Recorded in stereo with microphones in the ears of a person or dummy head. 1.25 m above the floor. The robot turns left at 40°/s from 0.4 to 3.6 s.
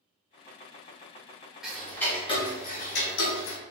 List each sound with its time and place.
1.6 s ticking: 175° right, 1.0 m; by 3.6 s 105° left, 1.0 m